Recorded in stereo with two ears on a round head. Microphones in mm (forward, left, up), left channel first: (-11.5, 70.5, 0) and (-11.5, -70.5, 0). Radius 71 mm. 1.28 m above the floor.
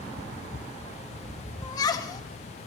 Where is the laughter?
25° left (ahead or behind), 1.5 m.